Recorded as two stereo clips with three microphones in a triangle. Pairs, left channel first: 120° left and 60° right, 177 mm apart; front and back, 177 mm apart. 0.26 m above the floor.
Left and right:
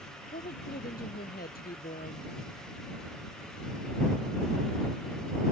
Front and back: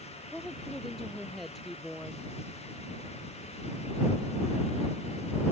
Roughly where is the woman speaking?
Left.